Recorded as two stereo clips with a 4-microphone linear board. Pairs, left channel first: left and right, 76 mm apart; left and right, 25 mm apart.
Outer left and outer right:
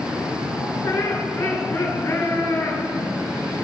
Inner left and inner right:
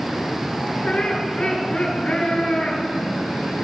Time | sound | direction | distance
0.8 | laughter | 30° left (ahead or behind) | 7.5 m